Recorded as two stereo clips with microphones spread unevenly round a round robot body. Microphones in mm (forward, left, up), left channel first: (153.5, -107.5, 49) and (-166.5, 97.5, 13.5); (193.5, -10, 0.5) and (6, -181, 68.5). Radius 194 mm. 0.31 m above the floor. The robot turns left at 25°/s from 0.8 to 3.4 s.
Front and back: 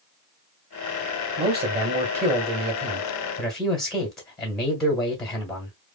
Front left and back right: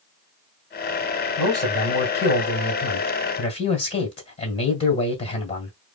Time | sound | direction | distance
1.4 | a man speaking | 115° left | 1.7 m